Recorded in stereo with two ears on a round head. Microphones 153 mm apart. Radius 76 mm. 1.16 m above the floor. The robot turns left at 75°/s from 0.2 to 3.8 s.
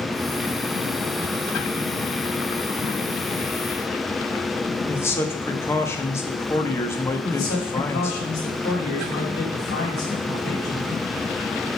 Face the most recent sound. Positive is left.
turn(degrees=90)